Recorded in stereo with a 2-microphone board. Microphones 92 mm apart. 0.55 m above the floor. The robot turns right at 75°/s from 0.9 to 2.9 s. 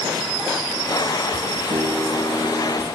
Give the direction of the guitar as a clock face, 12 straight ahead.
2 o'clock.